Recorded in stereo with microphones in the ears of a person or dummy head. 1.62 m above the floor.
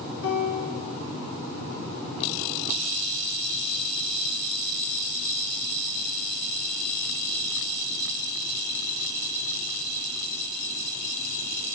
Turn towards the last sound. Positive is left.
turn(degrees=85)